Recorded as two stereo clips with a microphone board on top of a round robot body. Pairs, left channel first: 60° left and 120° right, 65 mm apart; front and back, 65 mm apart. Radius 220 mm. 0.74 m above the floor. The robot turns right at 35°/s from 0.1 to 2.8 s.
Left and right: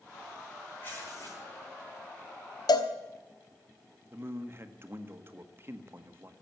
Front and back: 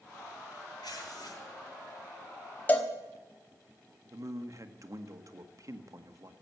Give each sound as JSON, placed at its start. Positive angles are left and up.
{"t": 0.8, "sound": "tearing paper", "azimuth_deg": 0, "distance_m": 7.5}
{"t": 2.7, "sound": "a cowbell", "azimuth_deg": 65, "distance_m": 1.0}
{"t": 4.1, "sound": "a man speaking", "azimuth_deg": -165, "distance_m": 1.6}